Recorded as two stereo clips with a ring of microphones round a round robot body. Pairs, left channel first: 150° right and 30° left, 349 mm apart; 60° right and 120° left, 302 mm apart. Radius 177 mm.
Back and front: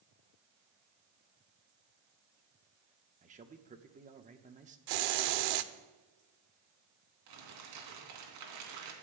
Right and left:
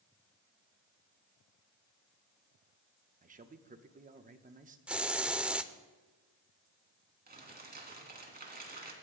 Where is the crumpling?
60° left, 3 m.